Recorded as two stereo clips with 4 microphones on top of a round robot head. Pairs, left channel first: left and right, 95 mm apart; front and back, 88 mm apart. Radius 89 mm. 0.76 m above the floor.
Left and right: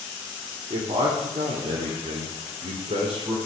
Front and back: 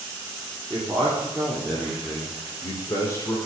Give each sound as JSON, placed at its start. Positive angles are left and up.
{"t": 0.7, "sound": "a man speaking", "azimuth_deg": -110, "distance_m": 2.5}